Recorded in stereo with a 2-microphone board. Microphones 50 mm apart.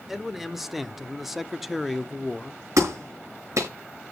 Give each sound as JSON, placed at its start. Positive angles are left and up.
{"t": 0.1, "sound": "a man speaking", "side_deg": -5, "distance_m": 1.4}
{"t": 2.8, "sound": "a clap", "side_deg": -85, "distance_m": 5.5}